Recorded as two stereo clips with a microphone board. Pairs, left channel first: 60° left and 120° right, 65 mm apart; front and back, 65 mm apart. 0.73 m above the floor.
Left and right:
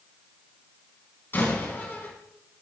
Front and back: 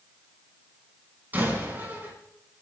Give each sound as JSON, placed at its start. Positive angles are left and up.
{"t": 1.3, "sound": "a door slam", "azimuth_deg": 120, "distance_m": 5.0}